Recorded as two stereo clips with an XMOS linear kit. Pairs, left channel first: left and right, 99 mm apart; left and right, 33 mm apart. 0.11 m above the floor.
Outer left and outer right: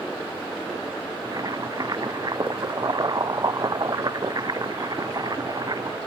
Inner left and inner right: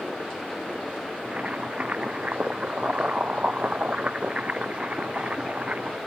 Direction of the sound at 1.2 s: 40° right (ahead or behind).